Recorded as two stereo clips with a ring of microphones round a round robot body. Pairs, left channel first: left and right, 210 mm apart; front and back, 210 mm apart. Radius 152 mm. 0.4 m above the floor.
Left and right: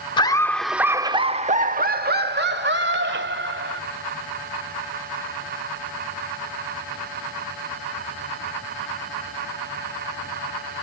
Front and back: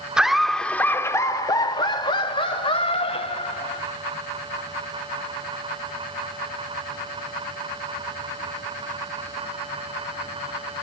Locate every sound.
0.2 s laughter: 100° left, 0.8 m; by 3.8 s 65° right, 2 m